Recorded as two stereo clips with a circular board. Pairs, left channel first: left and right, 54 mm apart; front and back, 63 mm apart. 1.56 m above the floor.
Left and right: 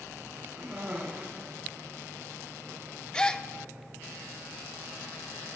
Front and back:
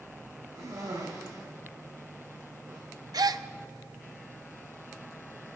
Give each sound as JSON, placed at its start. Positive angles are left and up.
{"t": 0.6, "sound": "a cough", "azimuth_deg": -160, "distance_m": 5.5}
{"t": 3.1, "sound": "a gasp", "azimuth_deg": 165, "distance_m": 0.5}